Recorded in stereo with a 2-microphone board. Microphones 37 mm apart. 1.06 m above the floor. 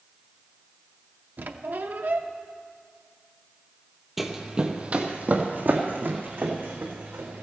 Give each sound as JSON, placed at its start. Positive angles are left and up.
{"t": 1.4, "sound": "a squeak", "side_deg": -60, "distance_m": 0.7}
{"t": 4.2, "sound": "running footsteps", "side_deg": -5, "distance_m": 1.2}